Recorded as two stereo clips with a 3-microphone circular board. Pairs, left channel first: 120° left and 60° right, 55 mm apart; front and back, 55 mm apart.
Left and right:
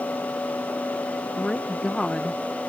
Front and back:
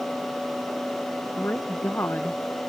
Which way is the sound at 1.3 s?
45° left.